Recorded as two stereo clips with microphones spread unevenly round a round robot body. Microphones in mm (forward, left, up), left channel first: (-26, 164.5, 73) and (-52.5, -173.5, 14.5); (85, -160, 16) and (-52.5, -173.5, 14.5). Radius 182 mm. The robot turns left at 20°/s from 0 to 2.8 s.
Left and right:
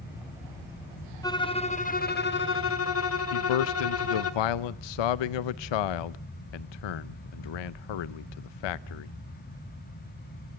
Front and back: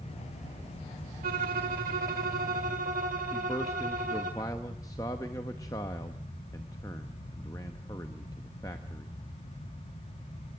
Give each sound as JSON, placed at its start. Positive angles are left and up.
{"t": 1.2, "sound": "a violin", "azimuth_deg": 160, "distance_m": 1.2}
{"t": 3.3, "sound": "a man speaking", "azimuth_deg": 80, "distance_m": 0.6}